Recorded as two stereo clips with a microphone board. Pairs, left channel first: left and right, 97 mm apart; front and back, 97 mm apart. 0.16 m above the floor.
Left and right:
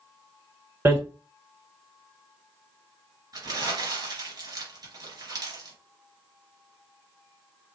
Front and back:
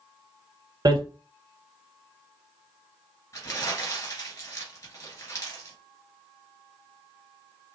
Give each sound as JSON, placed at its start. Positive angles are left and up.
{"t": 0.8, "sound": "hammering", "azimuth_deg": -150, "distance_m": 1.4}
{"t": 3.3, "sound": "crumpling", "azimuth_deg": -50, "distance_m": 2.5}